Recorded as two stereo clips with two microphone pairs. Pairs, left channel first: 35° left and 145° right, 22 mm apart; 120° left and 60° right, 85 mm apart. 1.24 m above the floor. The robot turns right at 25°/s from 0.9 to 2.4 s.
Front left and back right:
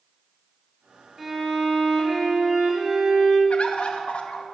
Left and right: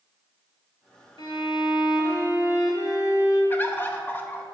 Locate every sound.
1.2 s a violin: 135° left, 2 m; by 3.4 s 165° left, 2 m
3.5 s a bird: 55° left, 0.9 m